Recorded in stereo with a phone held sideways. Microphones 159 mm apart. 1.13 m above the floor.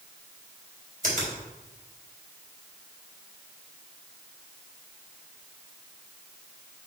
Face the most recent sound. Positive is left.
turn(degrees=-65)  # may be behind; listen again after turning